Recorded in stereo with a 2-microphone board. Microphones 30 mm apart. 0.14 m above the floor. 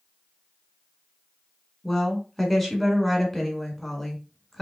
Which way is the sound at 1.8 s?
5° left (ahead or behind).